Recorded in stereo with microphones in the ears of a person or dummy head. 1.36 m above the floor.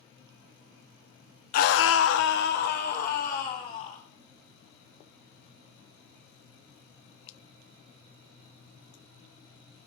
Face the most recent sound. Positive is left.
turn(degrees=45)  # may be behind; listen again after turning